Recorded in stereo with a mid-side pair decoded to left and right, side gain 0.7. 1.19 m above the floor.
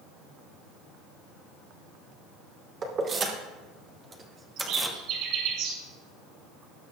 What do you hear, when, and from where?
2.8 s keys jangling: 40° right, 2.5 m; by 5.0 s 10° right, 1.4 m
4.6 s a bird: 65° right, 5 m